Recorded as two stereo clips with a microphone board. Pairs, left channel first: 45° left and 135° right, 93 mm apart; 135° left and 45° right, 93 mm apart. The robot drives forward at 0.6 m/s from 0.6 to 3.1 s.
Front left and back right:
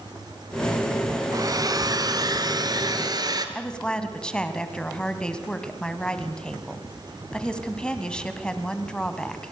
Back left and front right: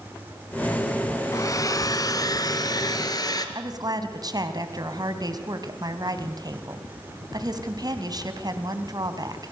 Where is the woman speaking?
30° right, 1.9 m.